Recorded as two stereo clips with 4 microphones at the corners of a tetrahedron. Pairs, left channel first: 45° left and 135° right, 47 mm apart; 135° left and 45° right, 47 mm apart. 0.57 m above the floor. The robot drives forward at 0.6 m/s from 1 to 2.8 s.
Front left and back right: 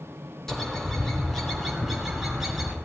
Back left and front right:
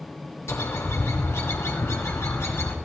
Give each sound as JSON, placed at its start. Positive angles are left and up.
{"t": 0.5, "sound": "a bird", "azimuth_deg": 125, "distance_m": 2.5}